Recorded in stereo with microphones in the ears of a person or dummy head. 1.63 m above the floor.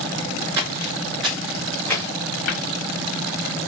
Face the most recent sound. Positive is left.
turn(degrees=80)